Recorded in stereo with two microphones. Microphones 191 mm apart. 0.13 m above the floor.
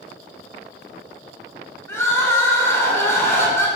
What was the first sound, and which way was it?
Crying, 15° left (ahead or behind).